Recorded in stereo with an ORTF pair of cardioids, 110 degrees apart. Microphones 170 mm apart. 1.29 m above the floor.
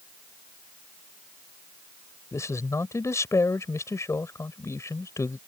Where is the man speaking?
15° left.